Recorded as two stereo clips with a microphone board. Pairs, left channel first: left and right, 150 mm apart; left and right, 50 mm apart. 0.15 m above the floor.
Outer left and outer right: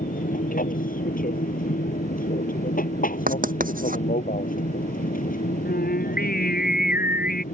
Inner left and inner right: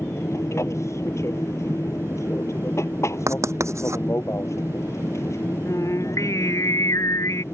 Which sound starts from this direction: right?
Writing, at 3.3 s.